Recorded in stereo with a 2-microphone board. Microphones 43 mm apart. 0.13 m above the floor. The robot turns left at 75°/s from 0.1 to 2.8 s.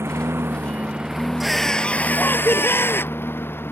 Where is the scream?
170° right; by 3.2 s 85° left.